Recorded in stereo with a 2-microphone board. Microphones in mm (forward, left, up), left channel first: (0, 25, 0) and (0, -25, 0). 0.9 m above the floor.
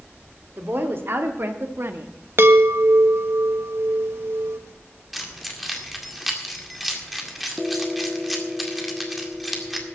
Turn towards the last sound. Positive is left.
turn(degrees=0)  # may be behind; listen again after turning